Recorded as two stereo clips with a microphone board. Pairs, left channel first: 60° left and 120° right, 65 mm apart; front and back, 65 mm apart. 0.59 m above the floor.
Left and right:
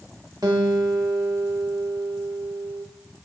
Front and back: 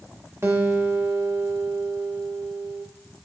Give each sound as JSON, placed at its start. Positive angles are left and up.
{"t": 0.4, "sound": "a guitar", "azimuth_deg": -130, "distance_m": 0.8}